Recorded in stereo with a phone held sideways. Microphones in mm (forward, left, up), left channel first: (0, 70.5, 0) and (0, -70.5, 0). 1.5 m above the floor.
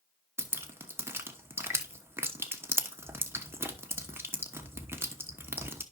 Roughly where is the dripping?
Centre.